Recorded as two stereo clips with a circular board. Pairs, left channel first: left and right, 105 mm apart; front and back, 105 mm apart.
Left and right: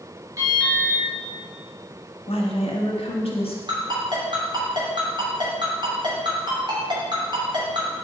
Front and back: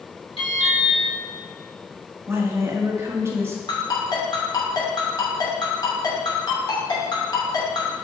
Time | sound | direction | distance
0.4 | an alarm | 30° right | 2 m
2.3 | a woman speaking | 115° left | 1.3 m
3.7 | a ringtone | 50° right | 2.5 m